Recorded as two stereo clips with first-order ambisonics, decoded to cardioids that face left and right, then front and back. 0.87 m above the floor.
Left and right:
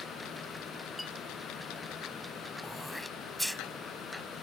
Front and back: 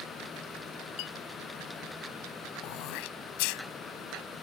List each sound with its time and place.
1.0 s a clink: 5° left
2.6 s throat clearing: straight ahead